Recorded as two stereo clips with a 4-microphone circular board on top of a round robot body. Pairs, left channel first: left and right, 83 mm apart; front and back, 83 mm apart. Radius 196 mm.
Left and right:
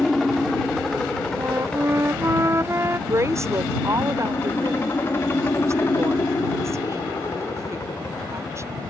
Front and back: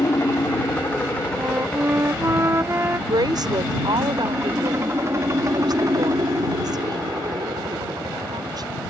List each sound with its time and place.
0.0 s a helicopter: straight ahead; by 8.9 s 150° left
1.4 s a flute: 135° right
3.1 s a woman speaking: 145° right